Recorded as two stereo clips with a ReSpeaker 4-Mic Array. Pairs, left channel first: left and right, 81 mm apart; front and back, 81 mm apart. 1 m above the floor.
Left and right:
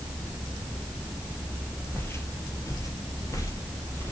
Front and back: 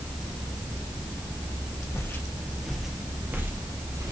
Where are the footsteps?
40° left, 1.4 m; by 4.1 s 140° left, 2.0 m.